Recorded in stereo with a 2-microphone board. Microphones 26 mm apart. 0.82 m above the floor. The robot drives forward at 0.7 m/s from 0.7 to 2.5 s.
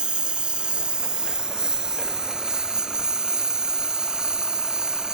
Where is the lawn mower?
40° right (ahead or behind); by 5.1 s 30° right (ahead or behind).